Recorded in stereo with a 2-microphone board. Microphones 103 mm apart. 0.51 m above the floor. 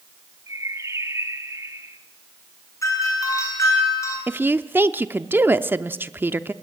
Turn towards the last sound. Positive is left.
turn(degrees=-20)  # may be behind; listen again after turning